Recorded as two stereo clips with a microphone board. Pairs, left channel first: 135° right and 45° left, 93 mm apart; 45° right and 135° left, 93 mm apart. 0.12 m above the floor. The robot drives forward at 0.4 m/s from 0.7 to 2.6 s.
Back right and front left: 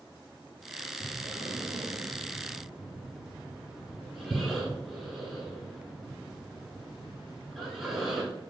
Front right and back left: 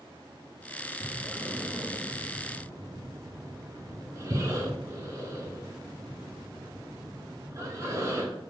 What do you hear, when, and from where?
1.0 s breathing: 30° left, 0.7 m; by 8.3 s 130° left, 0.6 m